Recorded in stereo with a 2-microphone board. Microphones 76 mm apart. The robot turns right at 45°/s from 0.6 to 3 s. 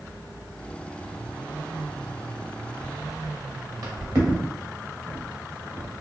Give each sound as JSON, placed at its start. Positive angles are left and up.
{"t": 2.8, "sound": "footsteps", "side_deg": -35, "distance_m": 1.3}